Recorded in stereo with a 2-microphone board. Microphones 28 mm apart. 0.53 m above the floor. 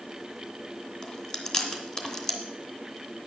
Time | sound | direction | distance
1.0 | chewing | 30° left (ahead or behind) | 2 m